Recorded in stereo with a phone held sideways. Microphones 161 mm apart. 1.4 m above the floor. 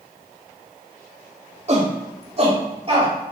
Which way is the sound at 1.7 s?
45° right (ahead or behind).